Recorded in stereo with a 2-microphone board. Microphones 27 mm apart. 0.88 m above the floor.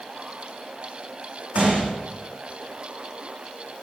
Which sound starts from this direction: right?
A gunshot, at 1.6 s.